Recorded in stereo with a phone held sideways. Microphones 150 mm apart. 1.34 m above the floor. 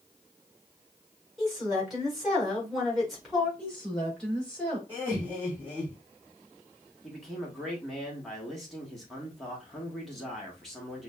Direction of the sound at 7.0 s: Centre (ahead or behind).